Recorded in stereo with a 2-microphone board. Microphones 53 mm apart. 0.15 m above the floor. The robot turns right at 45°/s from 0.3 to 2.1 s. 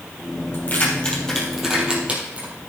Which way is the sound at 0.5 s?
40° left (ahead or behind).